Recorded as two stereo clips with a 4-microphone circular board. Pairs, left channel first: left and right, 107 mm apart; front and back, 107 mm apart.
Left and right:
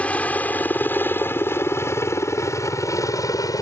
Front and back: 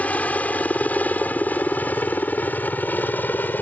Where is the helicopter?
45° left; by 3.6 s 60° left.